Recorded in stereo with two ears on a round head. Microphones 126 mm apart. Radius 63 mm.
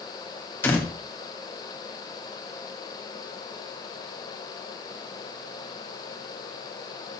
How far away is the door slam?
About 3 m.